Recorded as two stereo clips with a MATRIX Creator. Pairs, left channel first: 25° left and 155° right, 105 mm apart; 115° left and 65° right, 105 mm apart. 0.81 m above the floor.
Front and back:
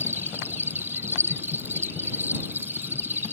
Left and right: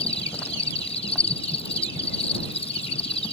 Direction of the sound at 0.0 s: 130° left.